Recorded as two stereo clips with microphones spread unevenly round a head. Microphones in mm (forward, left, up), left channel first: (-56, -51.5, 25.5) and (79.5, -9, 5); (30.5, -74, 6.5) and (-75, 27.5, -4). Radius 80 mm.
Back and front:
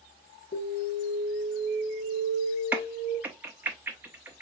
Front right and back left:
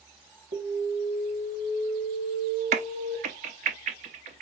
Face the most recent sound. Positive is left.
turn(degrees=100)